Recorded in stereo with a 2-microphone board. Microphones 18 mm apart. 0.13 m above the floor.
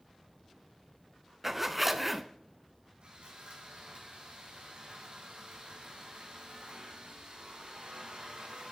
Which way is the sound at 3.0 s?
75° right (ahead or behind).